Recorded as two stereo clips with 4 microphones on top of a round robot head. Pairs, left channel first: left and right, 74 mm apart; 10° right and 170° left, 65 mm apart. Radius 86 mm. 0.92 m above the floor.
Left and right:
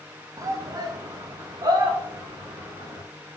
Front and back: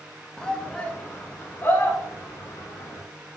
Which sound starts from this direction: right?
A shout, at 0.4 s.